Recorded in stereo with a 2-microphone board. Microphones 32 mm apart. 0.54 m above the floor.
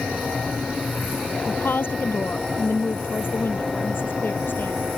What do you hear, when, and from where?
1.5 s a woman speaking: 85° left; by 4.8 s 80° left